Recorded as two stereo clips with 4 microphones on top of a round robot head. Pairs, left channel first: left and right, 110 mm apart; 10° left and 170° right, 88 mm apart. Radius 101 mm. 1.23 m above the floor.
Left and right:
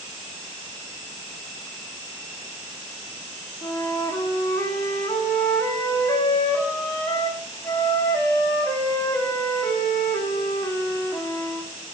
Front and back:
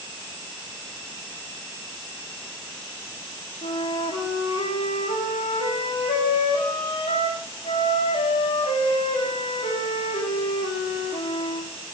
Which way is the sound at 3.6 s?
25° left.